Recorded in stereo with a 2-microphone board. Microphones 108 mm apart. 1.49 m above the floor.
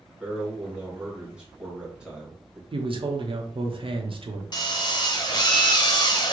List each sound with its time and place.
0.2 s a man speaking: 10° right (ahead or behind), 1.6 m
2.7 s a man speaking: 55° right (ahead or behind), 0.7 m
4.5 s a drill: 40° left (ahead or behind), 0.6 m